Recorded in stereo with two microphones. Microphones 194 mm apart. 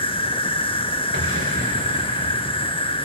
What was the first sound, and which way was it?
An insect, 25° left (ahead or behind).